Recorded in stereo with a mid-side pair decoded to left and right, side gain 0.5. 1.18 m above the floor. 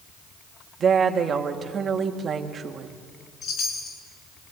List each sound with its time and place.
0.8 s a woman speaking: 40° right, 2.5 m
3.4 s a chime: 60° left, 6 m